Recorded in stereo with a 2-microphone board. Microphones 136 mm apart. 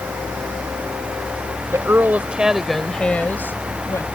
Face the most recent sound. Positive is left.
turn(degrees=20)  # may be behind; listen again after turning